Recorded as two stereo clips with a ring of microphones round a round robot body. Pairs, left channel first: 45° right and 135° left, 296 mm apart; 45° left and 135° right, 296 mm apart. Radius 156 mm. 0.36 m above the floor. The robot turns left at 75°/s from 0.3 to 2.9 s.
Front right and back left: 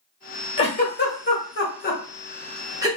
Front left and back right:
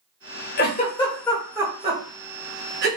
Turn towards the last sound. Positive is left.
turn(degrees=-160)